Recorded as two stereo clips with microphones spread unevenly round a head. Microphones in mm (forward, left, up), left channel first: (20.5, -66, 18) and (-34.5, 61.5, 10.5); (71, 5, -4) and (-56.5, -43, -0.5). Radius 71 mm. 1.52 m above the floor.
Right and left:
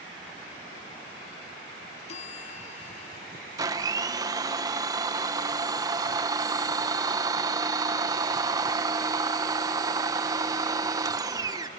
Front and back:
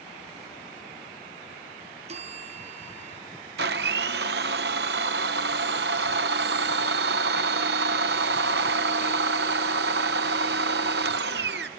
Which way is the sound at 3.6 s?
Straight behind.